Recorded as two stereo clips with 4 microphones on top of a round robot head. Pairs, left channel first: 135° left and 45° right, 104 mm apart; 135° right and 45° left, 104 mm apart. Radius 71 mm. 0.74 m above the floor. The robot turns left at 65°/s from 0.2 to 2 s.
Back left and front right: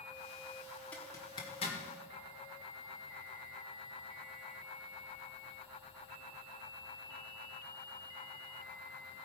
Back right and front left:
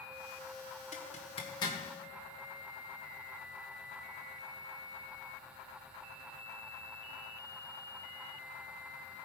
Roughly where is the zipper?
Behind right.